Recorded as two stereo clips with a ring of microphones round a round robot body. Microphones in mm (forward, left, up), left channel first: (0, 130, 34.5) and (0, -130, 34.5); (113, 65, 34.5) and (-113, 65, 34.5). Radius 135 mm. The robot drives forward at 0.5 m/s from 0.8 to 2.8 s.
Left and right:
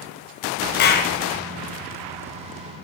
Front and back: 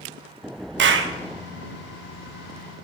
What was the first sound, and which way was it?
A clap, 140° left.